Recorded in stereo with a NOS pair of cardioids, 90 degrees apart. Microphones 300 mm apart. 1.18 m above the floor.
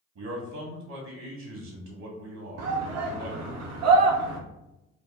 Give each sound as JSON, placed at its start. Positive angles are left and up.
{"t": 0.1, "sound": "a man speaking", "azimuth_deg": -70, "distance_m": 1.9}
{"t": 2.6, "sound": "a shout", "azimuth_deg": -65, "distance_m": 0.8}